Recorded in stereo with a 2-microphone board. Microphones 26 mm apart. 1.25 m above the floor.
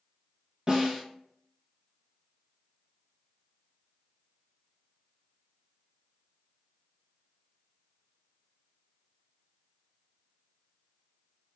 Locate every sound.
0.7 s a snare drum: 40° right (ahead or behind), 0.7 m